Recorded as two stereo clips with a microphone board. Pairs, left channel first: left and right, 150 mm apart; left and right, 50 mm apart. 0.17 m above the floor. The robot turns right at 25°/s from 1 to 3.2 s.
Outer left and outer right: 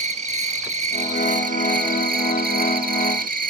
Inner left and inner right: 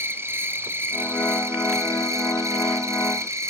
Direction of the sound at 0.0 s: 130° right.